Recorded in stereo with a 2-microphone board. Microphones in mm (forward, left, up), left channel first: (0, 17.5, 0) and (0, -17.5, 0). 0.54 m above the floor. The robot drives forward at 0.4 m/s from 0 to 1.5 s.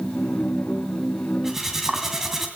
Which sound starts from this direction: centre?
Cutlery clinking, at 1.4 s.